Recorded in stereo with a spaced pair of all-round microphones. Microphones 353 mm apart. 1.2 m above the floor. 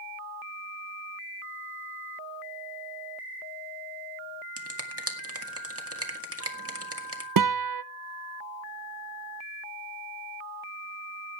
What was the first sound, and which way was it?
A finger snap, 40° right (ahead or behind).